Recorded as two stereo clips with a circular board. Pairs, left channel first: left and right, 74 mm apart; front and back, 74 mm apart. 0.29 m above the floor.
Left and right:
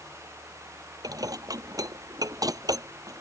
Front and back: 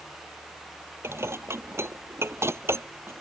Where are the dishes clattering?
125° right.